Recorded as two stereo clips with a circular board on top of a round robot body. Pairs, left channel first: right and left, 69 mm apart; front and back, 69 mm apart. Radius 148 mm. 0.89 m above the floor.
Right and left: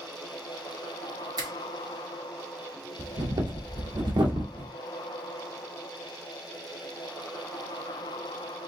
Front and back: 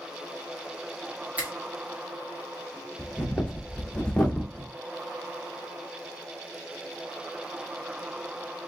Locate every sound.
1.4 s a finger snap: 110° left, 1.5 m
3.0 s breathing: 75° left, 1.0 m